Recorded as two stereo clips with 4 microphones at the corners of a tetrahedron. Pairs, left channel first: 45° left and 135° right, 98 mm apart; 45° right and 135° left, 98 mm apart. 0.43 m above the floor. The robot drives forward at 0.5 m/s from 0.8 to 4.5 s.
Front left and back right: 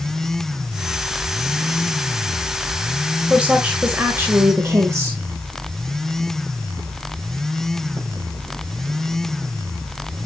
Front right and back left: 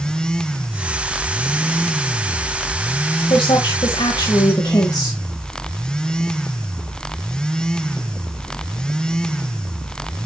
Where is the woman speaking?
55° right, 1.6 m; by 5.2 s 80° right, 1.4 m.